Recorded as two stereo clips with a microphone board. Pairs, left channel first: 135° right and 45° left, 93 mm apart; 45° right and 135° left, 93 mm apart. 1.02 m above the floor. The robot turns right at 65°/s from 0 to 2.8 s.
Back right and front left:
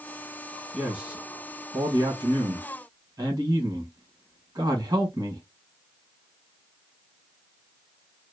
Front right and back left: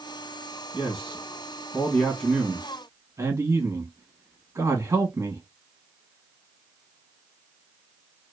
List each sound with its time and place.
0.7 s a man speaking: 45° right, 1.4 m; by 5.4 s 90° left, 1.4 m